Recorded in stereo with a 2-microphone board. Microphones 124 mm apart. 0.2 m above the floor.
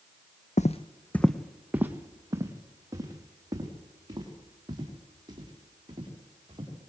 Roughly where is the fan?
I don't hear a fan.